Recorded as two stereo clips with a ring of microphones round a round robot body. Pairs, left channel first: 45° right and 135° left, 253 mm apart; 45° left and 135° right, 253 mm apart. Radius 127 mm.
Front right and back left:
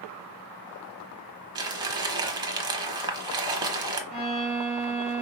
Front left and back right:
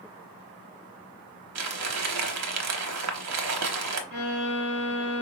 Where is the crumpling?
155° right, 0.9 m.